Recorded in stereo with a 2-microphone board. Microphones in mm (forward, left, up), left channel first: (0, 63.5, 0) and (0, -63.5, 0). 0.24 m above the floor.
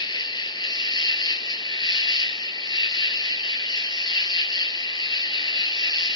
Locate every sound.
0.0 s an insect: 35° left (ahead or behind), 0.8 m